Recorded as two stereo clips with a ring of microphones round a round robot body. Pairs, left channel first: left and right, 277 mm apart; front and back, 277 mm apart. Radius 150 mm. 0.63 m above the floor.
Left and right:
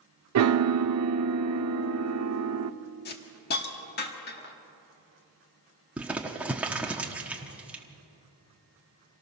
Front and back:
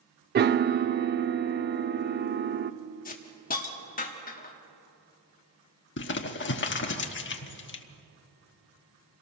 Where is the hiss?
50° left, 1.3 m.